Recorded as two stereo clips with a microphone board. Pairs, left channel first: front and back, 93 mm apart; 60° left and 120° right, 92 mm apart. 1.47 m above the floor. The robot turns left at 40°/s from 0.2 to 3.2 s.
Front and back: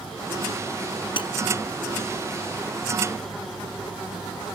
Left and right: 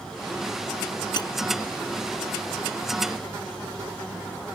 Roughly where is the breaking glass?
Ahead left.